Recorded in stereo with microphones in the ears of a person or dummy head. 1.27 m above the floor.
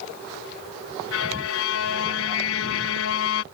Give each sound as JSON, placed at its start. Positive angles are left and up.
{"t": 1.1, "sound": "a violin", "side_deg": 70}